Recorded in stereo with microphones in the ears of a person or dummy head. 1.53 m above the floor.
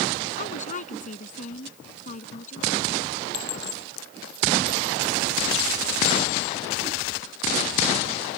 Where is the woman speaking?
40° left (ahead or behind).